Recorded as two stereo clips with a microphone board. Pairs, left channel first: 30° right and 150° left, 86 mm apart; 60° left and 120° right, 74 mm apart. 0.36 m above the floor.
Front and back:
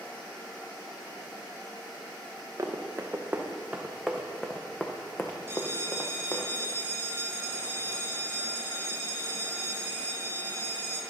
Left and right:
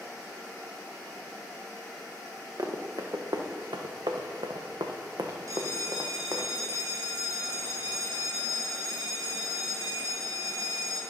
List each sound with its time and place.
2.6 s running footsteps: 155° right, 1.6 m; by 6.5 s 75° right, 1.9 m
5.5 s a bell: 150° right, 2.0 m